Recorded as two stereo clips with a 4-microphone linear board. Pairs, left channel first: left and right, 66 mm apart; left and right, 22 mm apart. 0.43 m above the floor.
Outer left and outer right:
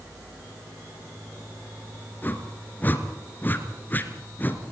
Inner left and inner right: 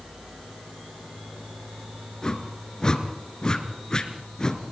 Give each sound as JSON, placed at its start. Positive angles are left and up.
{"t": 2.2, "sound": "a whoosh", "side_deg": 30, "distance_m": 3.0}